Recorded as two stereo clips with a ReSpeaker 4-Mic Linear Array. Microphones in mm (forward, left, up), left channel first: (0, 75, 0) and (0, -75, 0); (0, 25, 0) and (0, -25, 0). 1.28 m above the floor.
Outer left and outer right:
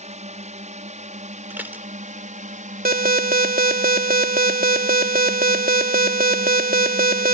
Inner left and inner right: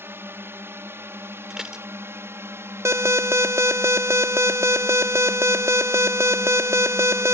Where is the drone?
50° right (ahead or behind); by 7.3 s 60° right (ahead or behind).